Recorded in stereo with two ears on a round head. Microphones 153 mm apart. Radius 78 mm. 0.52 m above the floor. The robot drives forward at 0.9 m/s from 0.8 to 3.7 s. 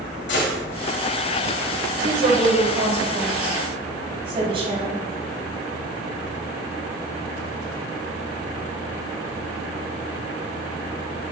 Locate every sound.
0.3 s a gunshot: 70° left (ahead or behind), 2.5 m
2.0 s a woman speaking: 50° right (ahead or behind), 2.5 m; by 5.0 s 35° right (ahead or behind), 3.5 m